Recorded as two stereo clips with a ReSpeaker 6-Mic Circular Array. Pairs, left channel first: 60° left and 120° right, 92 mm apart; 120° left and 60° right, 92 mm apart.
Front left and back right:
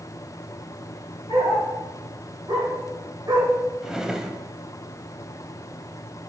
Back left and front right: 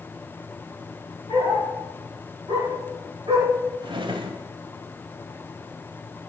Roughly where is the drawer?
Ahead right.